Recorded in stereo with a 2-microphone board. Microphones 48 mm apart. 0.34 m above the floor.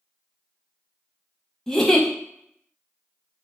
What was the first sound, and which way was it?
A giggle, 5° left (ahead or behind).